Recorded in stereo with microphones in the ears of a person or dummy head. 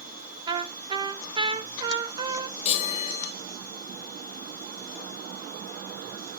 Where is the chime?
40° left (ahead or behind), 0.6 m.